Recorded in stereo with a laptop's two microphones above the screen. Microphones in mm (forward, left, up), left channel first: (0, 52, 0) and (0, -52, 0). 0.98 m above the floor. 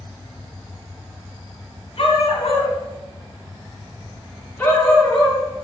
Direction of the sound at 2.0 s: 65° left (ahead or behind).